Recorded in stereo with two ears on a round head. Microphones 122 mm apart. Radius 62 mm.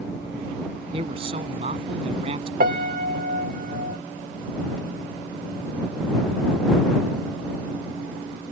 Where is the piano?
65° right (ahead or behind).